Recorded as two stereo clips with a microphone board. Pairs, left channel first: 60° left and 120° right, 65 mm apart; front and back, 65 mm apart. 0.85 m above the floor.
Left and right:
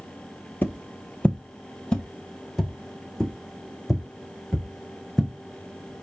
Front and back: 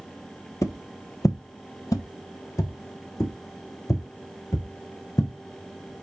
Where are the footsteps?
10° left, 1.2 m; by 5.3 s 30° right, 4 m.